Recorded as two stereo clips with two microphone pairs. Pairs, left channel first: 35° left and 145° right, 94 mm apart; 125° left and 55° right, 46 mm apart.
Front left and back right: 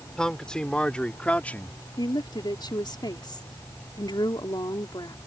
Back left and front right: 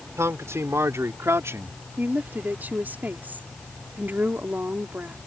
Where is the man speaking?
50° right; by 1.7 s 35° right.